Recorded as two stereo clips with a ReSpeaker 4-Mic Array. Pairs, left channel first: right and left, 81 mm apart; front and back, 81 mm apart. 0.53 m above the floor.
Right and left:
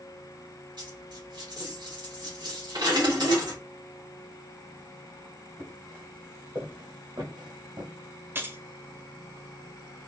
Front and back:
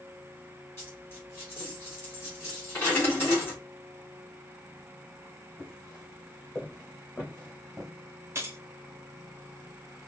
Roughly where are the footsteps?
Ahead left.